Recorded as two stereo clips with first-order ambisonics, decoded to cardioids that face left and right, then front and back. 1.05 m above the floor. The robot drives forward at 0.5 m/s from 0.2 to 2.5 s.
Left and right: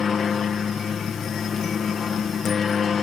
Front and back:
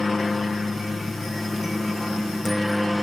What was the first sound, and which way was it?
A helicopter, 60° left.